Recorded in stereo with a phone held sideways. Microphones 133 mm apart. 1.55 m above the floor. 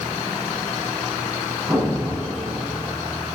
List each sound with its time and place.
1.7 s an explosion: 10° right (ahead or behind), 9.5 m